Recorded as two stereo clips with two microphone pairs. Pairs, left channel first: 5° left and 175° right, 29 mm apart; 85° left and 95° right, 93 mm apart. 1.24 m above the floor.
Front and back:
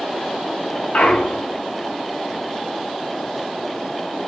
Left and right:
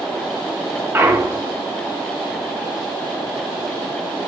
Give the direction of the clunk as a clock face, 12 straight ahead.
1 o'clock.